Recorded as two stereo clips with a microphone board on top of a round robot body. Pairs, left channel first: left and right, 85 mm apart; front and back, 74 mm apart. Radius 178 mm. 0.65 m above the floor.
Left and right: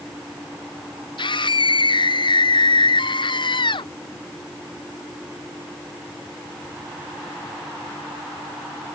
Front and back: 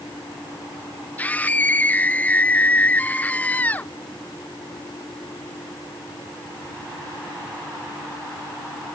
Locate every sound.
1.2 s a scream: 70° left